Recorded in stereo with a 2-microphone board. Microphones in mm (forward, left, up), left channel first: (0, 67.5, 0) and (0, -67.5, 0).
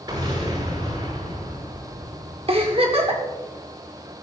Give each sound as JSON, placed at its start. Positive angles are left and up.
{"t": 0.1, "sound": "an explosion", "side_deg": -35, "distance_m": 6.5}
{"t": 2.5, "sound": "a giggle", "side_deg": -45, "distance_m": 1.9}